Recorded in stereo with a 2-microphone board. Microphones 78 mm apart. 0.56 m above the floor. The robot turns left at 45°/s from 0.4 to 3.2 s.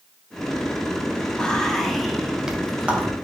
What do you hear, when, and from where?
1.4 s whispering: 10° left (ahead or behind), 0.7 m; by 3.1 s 20° right (ahead or behind), 0.7 m